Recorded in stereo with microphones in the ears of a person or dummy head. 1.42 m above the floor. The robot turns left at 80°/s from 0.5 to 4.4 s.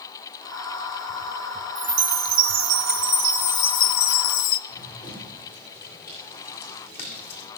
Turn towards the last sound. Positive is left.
turn(degrees=10)  # may be behind; listen again after turning